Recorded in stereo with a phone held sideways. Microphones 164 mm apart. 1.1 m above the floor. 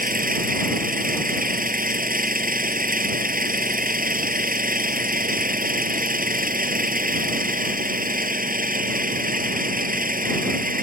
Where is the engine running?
60° right (ahead or behind).